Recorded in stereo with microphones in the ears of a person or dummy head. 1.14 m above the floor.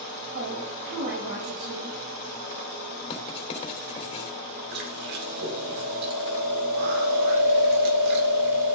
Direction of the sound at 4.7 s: 60° right (ahead or behind).